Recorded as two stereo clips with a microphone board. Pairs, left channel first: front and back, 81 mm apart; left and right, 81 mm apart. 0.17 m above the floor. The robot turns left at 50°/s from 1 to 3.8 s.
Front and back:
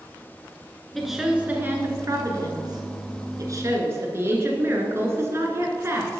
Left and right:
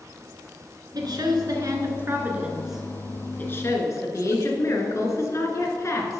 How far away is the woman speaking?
About 1.8 m.